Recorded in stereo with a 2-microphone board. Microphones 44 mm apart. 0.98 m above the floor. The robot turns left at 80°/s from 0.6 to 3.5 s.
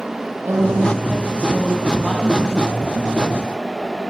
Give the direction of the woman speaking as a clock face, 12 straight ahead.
3 o'clock.